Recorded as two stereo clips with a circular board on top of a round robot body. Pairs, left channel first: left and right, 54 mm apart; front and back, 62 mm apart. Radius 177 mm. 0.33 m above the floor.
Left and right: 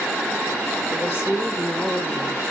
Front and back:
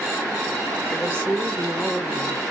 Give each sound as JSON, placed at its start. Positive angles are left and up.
{"t": 0.9, "sound": "a woman speaking", "azimuth_deg": 65, "distance_m": 1.9}